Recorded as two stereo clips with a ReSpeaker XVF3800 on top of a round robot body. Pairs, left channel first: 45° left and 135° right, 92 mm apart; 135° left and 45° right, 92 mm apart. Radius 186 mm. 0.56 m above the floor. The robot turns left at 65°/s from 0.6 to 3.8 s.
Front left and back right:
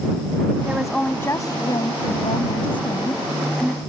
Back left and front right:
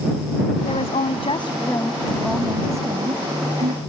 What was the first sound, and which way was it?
A woman speaking, 150° left.